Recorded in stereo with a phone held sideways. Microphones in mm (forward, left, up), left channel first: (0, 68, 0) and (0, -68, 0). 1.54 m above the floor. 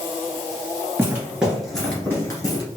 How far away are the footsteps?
About 1.6 m.